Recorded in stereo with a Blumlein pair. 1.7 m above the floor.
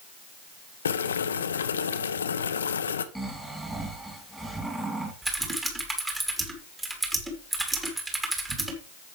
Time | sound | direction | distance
0.8 | boiling | 70° left | 0.7 m
3.1 | snoring | 5° right | 2.5 m
5.2 | typing on a keyboard | 10° right | 2 m